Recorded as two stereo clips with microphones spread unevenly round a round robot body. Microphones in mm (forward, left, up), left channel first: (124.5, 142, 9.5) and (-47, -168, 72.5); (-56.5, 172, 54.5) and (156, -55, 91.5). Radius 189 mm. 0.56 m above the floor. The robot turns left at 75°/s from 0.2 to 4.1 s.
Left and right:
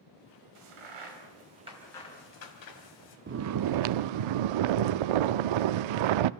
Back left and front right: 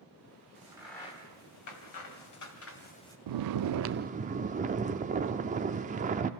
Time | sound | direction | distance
0.6 | a crack | 115° right | 2.5 m
3.3 | snoring | 55° right | 0.5 m